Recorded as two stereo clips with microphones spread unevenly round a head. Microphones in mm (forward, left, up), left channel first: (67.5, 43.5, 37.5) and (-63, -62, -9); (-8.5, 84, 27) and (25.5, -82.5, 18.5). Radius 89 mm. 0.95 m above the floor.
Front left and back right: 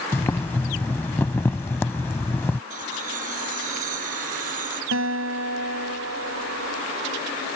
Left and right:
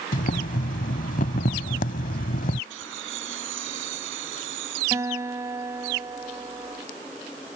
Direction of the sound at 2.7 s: 95° right.